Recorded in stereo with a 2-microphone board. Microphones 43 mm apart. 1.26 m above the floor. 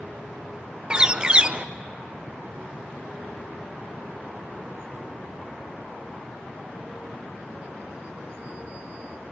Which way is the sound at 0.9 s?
20° right (ahead or behind).